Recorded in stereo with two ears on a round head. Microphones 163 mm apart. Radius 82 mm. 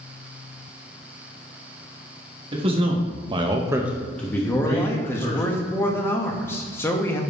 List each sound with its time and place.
2.5 s a man speaking: 30° right (ahead or behind), 1.4 m; by 5.4 s 25° left (ahead or behind), 1.7 m
4.4 s a man speaking: 15° left (ahead or behind), 0.8 m